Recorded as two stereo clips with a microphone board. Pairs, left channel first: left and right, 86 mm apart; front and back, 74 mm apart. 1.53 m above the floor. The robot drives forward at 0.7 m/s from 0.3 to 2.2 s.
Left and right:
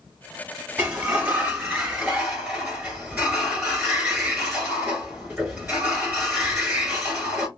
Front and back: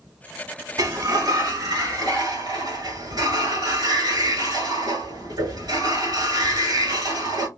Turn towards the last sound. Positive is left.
turn(degrees=-170)